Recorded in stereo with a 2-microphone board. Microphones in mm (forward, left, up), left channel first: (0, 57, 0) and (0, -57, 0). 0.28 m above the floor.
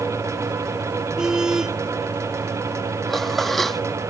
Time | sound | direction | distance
1.2 | a car horn | 5° right (ahead or behind) | ?
3.1 | dishes clattering | centre (ahead or behind) | ?